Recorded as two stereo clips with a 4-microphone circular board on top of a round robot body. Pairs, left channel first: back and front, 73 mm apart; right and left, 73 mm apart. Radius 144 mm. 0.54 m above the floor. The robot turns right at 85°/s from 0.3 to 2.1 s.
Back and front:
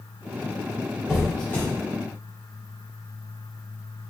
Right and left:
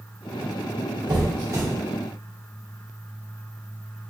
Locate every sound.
1.1 s a squeak: 80° left, 1.5 m; by 1.6 s 130° left, 1.5 m